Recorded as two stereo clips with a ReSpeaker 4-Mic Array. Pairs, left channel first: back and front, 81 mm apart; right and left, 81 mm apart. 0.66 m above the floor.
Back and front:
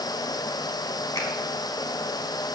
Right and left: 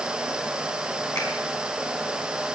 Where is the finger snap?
130° right, 4.5 m.